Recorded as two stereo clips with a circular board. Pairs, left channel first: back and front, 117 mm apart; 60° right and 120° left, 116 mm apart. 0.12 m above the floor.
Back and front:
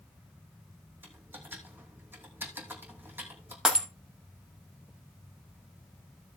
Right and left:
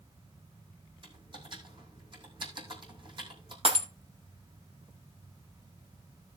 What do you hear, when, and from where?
1.0 s typing on a keyboard: 75° left, 3 m
3.6 s breaking glass: 85° left, 2.5 m